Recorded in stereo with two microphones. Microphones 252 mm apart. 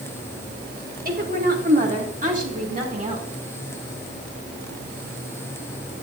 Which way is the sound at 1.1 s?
35° right (ahead or behind).